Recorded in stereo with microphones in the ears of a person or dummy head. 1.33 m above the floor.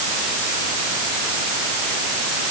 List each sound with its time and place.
Only background noise.